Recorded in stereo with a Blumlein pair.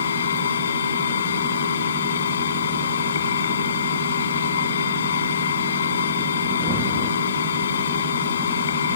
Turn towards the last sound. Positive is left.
turn(degrees=65)